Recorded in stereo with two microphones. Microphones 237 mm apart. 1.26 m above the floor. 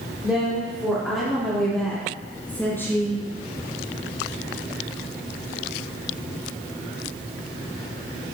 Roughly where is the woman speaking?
Centre.